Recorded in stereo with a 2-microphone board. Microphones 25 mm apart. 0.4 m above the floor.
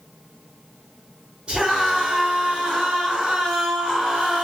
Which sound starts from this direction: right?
A scream, at 1.5 s.